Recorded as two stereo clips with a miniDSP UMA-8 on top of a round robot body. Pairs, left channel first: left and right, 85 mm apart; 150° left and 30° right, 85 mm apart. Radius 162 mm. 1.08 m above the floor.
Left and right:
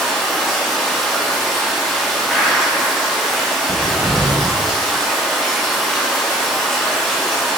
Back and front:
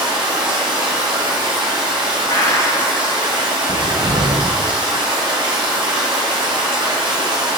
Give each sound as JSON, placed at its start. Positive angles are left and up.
{"t": 0.0, "sound": "running water", "azimuth_deg": 5, "distance_m": 0.9}
{"t": 2.3, "sound": "a gunshot", "azimuth_deg": 180, "distance_m": 2.0}
{"t": 3.7, "sound": "a cupboard door", "azimuth_deg": 0, "distance_m": 0.7}